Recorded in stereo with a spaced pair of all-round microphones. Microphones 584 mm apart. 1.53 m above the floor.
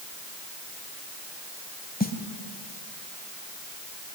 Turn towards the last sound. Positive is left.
turn(degrees=15)  # may be behind; listen again after turning